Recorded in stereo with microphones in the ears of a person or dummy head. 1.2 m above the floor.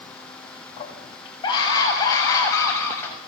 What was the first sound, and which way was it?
A scream, 25° left (ahead or behind).